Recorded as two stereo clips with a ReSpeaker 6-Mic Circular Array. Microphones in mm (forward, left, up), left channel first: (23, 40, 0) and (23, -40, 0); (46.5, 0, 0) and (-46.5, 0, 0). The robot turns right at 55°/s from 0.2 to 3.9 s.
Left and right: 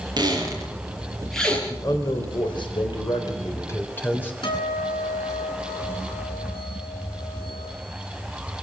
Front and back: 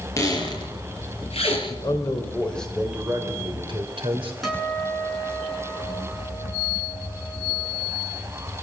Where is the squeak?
60° right, 6 m; by 1.6 s 20° left, 6 m.